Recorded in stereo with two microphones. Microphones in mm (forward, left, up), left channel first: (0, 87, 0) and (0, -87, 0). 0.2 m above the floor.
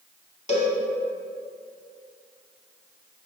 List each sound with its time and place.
0.5 s a cowbell: 40° left (ahead or behind), 0.7 m